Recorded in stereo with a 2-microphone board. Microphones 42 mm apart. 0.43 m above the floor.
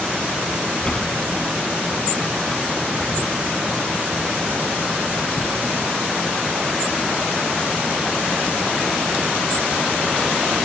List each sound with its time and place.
0.8 s a sliding door: 20° left (ahead or behind), 1.4 m